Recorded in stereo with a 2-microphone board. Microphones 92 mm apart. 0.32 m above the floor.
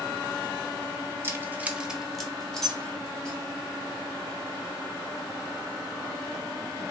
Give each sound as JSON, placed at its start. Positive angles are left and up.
{"t": 1.2, "sound": "keys jangling", "side_deg": -25, "distance_m": 0.6}